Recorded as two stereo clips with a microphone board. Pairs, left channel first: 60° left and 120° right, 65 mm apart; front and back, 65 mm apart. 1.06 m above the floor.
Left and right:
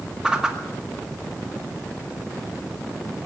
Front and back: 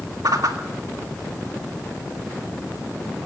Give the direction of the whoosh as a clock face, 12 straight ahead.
7 o'clock.